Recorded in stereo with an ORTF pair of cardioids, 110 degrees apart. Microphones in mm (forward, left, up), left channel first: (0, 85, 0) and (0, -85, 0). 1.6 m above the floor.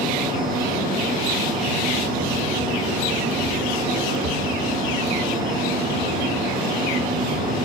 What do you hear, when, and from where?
0.0 s a fan: 70° right, 2.5 m